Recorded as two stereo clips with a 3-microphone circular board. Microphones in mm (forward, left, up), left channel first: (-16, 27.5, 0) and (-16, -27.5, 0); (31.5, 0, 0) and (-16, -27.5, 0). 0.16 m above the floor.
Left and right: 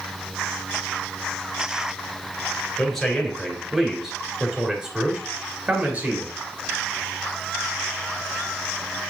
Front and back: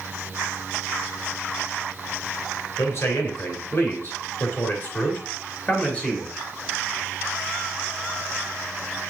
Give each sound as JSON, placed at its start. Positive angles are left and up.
{"t": 2.8, "sound": "a man speaking", "azimuth_deg": 10, "distance_m": 3.5}